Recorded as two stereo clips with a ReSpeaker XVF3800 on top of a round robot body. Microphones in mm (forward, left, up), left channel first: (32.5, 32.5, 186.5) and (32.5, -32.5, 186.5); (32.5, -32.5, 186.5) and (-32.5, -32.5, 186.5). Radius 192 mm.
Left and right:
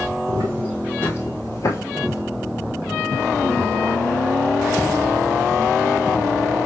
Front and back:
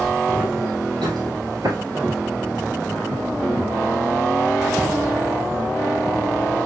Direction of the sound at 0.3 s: 110° right.